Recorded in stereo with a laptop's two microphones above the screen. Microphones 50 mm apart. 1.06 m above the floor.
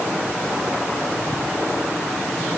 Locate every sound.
Only background noise.